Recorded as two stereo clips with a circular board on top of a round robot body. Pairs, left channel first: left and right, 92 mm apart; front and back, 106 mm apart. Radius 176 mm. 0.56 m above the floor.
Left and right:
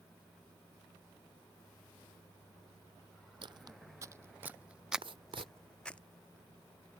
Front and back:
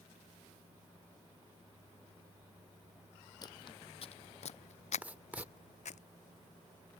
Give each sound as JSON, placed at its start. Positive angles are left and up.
{"t": 3.4, "sound": "footsteps", "azimuth_deg": -55}
{"t": 5.0, "sound": "writing", "azimuth_deg": -105}